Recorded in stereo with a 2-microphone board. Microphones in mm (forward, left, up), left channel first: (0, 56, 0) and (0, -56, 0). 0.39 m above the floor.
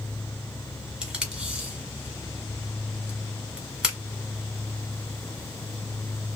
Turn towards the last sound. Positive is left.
turn(degrees=-5)  # may be behind; listen again after turning